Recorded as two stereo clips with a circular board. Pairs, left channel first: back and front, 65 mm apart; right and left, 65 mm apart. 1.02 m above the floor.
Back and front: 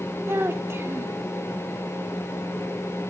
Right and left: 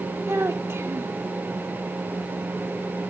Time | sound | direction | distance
0.3 | a child speaking | 45° left | 1.0 m